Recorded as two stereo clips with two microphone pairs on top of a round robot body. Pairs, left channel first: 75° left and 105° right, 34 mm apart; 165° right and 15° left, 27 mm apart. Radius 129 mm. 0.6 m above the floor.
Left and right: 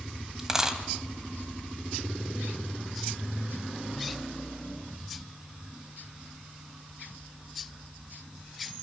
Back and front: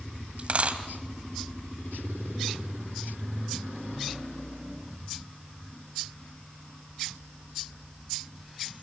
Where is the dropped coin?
30° right, 1.6 m.